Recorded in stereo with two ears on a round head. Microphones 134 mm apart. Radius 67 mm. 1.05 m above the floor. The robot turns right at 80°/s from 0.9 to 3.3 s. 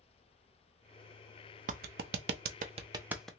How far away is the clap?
About 0.5 m.